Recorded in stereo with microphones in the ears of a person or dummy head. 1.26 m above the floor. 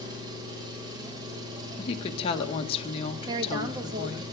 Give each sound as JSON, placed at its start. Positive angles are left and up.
{"t": 0.0, "sound": "an engine running", "side_deg": -25, "distance_m": 6.5}
{"t": 1.8, "sound": "a woman speaking", "side_deg": 30, "distance_m": 1.6}
{"t": 3.3, "sound": "a woman speaking", "side_deg": -25, "distance_m": 1.8}